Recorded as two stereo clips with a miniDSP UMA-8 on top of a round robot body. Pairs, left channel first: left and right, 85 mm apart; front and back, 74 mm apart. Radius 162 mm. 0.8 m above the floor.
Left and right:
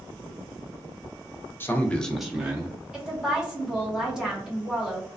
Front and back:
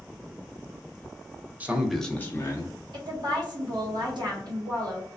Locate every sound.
1.6 s a man speaking: 130° left, 0.8 m; by 2.8 s 25° right, 1.0 m
2.9 s a woman speaking: 170° right, 1.6 m